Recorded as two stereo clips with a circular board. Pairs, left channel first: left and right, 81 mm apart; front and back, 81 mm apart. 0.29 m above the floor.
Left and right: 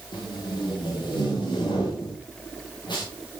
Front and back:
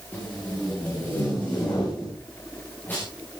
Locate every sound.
0.1 s tape being pulled: 70° left, 7.5 m